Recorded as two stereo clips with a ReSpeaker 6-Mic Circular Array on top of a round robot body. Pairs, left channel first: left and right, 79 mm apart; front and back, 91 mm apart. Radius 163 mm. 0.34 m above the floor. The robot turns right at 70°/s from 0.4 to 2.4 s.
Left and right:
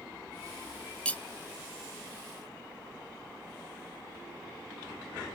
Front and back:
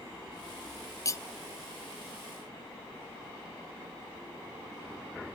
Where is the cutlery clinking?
20° left, 0.6 m; by 1.2 s 35° left, 0.6 m.